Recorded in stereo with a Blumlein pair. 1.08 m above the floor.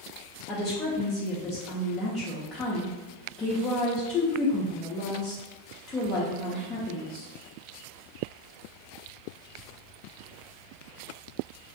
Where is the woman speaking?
20° left, 0.5 m.